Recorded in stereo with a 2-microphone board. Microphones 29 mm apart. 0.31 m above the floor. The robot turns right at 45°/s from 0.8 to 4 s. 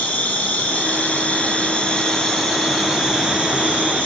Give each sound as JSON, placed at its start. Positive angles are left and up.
{"t": 0.0, "sound": "an insect", "azimuth_deg": 100, "distance_m": 7.5}